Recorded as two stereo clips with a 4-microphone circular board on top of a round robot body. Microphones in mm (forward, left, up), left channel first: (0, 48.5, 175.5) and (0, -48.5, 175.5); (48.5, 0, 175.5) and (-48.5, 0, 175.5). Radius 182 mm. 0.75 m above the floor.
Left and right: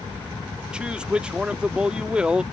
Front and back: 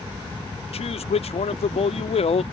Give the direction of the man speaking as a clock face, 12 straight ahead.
12 o'clock.